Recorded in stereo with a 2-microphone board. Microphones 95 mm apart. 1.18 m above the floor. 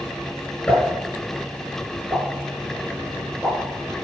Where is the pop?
10° left (ahead or behind), 5.5 m.